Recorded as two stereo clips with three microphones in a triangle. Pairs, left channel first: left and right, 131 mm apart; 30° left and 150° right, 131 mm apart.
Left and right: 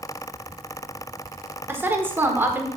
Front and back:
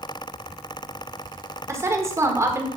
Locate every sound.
1.7 s a woman speaking: 135° right, 1.1 m